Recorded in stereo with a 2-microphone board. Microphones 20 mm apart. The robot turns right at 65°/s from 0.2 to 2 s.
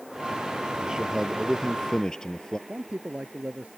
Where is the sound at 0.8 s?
45° right; by 2.6 s 35° left.